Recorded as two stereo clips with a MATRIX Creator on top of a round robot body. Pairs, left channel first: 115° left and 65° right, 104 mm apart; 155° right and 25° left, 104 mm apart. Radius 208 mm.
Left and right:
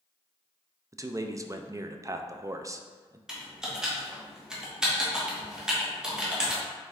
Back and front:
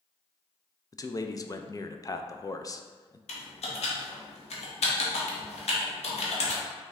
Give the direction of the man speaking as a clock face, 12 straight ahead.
4 o'clock.